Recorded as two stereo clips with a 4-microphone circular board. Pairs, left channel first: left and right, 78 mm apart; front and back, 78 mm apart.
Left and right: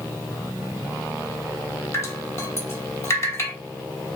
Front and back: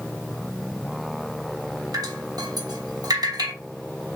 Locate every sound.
1.9 s dripping: 140° left, 1.1 m